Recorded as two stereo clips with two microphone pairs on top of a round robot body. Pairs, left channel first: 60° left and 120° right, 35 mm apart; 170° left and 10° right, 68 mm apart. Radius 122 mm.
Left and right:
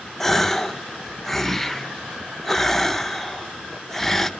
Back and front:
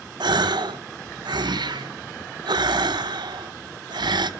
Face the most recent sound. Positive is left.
turn(degrees=-15)